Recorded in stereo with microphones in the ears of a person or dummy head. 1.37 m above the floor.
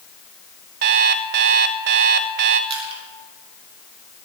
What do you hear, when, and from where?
0.8 s an alarm clock: 50° right (ahead or behind), 0.7 m
2.7 s crushing: 35° right (ahead or behind), 4 m